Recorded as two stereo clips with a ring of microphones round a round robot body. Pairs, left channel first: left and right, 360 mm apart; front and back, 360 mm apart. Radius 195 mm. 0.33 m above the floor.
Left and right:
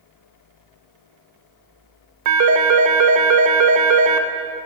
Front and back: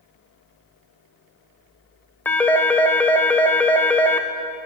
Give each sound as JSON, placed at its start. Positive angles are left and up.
{"t": 2.2, "sound": "a phone ringing", "azimuth_deg": -85, "distance_m": 0.5}